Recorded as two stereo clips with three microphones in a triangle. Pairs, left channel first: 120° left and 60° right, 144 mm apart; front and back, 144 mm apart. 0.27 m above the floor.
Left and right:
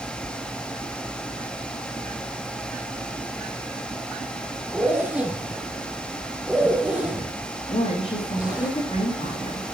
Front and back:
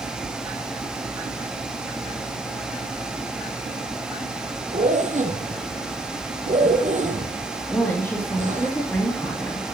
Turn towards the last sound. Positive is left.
turn(degrees=75)